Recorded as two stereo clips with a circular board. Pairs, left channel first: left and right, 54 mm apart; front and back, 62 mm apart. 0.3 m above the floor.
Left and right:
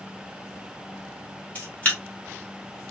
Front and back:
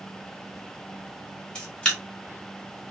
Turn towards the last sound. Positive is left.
turn(degrees=60)